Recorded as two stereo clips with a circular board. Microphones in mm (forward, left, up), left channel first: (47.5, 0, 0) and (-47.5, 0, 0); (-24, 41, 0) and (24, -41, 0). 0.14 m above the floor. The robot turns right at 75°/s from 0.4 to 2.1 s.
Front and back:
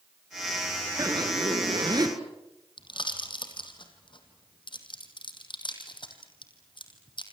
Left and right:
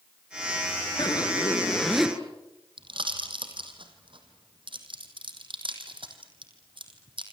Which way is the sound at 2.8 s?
35° right.